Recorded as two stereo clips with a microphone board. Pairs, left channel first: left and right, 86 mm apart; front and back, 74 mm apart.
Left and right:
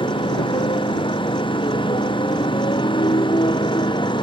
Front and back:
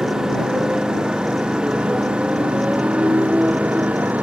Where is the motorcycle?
100° left; by 4.2 s 110° left.